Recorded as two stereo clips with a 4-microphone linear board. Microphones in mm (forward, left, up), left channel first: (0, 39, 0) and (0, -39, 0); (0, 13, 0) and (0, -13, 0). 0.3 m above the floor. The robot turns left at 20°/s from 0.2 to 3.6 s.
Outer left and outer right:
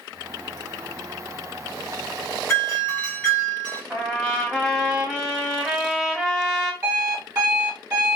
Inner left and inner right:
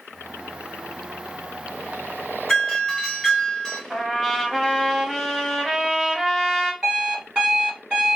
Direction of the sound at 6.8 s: 35° right (ahead or behind).